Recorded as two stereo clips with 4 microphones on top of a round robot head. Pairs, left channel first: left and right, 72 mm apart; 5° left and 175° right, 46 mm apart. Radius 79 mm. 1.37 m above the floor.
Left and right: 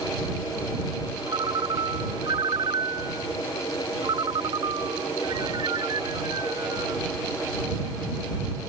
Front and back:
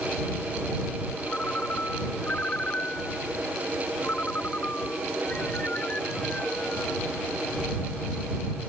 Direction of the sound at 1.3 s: 65° right.